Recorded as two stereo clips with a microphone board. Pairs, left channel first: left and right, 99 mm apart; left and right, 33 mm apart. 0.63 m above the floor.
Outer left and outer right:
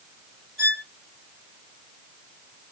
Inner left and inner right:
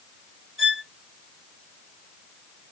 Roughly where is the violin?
Centre.